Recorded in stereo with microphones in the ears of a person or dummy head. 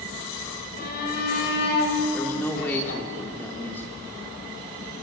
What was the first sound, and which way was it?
A shout, 50° left (ahead or behind).